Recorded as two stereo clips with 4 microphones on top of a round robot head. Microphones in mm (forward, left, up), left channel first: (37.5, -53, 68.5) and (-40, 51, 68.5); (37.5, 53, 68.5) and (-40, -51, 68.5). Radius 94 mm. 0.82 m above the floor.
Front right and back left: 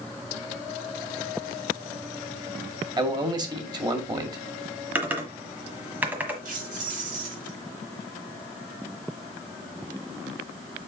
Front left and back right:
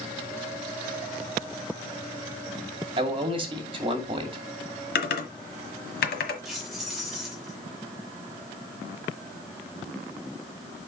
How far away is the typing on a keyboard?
About 1.4 m.